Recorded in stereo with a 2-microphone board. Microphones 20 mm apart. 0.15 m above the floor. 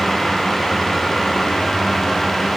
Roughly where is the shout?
I don't hear a shout.